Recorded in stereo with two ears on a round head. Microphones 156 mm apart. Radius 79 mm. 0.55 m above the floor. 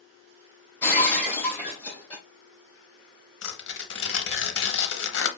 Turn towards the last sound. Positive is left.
turn(degrees=75)  # may be behind; listen again after turning